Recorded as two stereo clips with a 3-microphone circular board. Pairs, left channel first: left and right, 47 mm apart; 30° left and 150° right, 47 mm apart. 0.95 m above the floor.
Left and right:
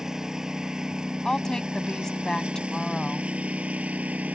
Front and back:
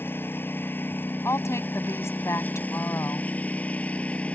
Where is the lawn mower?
10° right; by 4.4 s 35° right.